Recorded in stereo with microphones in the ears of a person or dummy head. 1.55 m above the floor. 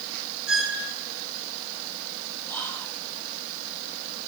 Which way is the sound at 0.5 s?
5° right (ahead or behind).